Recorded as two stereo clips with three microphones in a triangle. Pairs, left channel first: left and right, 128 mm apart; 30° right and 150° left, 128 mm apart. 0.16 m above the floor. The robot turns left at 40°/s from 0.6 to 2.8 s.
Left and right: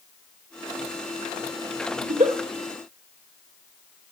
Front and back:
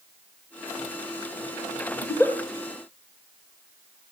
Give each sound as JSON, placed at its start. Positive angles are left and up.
{"t": 2.0, "sound": "a giggle", "azimuth_deg": -85, "distance_m": 2.5}